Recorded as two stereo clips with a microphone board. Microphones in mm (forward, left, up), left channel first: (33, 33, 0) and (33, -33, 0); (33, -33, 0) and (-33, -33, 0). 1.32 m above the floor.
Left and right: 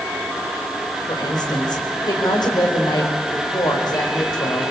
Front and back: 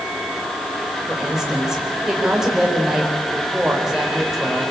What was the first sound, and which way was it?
A woman speaking, 95° left.